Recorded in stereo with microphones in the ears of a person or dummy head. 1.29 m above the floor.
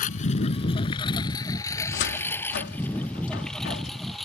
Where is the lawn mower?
40° left (ahead or behind); by 4.3 s 5° right (ahead or behind).